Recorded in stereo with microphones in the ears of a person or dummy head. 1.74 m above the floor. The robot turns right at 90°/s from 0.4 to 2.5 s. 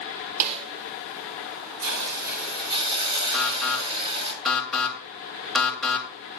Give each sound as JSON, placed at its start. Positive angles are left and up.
{"t": 0.4, "sound": "a snare drum", "side_deg": -45, "distance_m": 1.7}
{"t": 1.8, "sound": "a hiss", "azimuth_deg": -95, "distance_m": 5.0}
{"t": 3.3, "sound": "an alarm", "side_deg": 0, "distance_m": 3.0}